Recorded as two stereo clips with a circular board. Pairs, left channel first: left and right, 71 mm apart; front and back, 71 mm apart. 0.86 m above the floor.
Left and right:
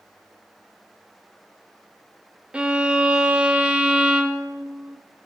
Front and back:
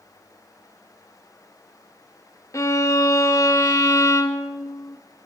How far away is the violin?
About 0.8 m.